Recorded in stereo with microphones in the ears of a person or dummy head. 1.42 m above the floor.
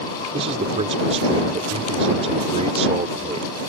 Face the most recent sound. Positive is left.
turn(degrees=-35)  # may be behind; listen again after turning